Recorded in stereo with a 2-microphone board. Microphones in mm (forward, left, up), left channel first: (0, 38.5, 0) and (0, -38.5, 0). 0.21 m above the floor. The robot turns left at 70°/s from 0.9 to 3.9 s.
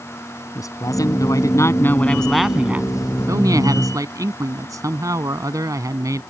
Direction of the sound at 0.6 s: 105° left.